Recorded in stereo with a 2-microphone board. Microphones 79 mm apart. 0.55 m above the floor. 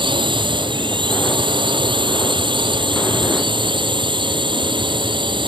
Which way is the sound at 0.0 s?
85° right.